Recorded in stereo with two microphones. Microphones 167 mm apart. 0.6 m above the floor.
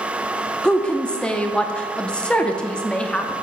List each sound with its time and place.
0.6 s a woman speaking: 5° left (ahead or behind), 0.6 m